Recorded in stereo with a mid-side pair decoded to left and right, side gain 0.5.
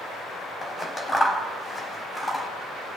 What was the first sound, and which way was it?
Scissors, 20° left.